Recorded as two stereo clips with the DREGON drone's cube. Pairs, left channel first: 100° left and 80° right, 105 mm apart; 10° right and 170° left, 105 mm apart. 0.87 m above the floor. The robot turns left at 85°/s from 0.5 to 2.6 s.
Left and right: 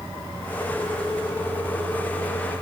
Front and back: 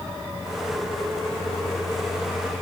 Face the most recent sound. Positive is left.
No sound to turn to.